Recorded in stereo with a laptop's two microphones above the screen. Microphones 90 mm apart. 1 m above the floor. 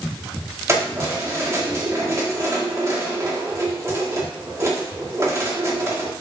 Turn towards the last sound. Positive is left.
turn(degrees=-30)  # may be behind; listen again after turning